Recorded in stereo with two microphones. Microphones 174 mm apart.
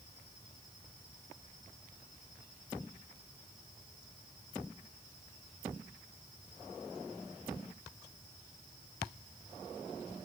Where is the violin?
I don't hear a violin.